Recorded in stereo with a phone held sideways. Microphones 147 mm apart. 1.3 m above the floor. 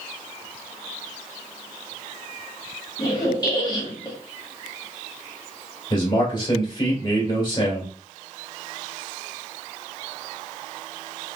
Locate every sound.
3.0 s a squeak: 30° left (ahead or behind), 1.1 m
5.9 s a man speaking: 35° left (ahead or behind), 1.8 m